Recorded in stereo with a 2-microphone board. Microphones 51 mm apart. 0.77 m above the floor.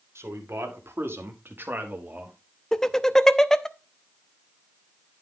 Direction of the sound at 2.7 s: 10° left (ahead or behind).